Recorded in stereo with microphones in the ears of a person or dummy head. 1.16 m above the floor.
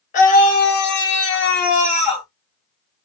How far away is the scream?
About 1.9 m.